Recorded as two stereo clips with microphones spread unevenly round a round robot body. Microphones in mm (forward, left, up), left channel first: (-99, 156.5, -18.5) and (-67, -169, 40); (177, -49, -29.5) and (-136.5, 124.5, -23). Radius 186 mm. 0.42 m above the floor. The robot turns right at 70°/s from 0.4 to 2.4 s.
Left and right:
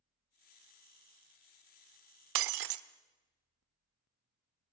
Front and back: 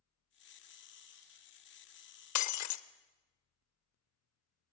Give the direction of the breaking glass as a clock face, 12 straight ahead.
2 o'clock.